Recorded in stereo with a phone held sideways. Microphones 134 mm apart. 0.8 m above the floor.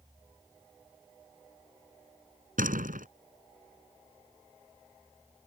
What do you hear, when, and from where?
2.6 s a door slam: 85° right